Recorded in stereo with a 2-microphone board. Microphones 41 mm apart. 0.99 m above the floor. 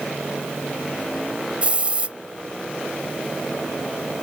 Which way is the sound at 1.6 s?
30° right (ahead or behind).